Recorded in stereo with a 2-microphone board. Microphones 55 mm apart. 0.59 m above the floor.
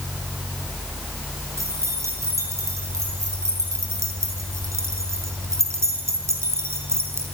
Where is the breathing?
I don't hear breathing.